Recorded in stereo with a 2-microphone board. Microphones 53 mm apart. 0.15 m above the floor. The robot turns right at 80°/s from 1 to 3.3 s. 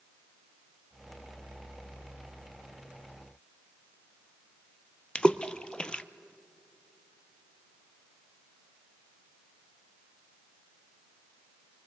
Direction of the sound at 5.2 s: 20° left (ahead or behind).